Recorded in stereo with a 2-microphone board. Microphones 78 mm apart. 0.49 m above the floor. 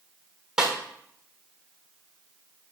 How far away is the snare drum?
About 1.3 m.